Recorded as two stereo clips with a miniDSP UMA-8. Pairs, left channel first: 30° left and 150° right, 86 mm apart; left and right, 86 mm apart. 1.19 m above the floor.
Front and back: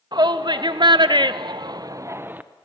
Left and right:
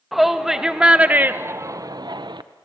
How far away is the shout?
About 1.7 m.